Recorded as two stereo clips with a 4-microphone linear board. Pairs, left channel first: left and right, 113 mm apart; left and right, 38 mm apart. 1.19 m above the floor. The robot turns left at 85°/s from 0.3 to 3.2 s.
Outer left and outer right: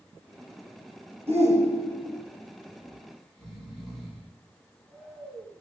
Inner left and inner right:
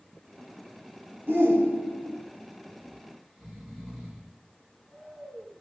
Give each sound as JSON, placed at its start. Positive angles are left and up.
{"t": 1.3, "sound": "a shout", "azimuth_deg": -65, "distance_m": 1.4}
{"t": 2.8, "sound": "snoring", "side_deg": -30, "distance_m": 2.0}